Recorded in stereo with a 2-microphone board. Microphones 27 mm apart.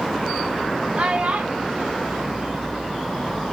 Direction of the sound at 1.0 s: 50° right (ahead or behind).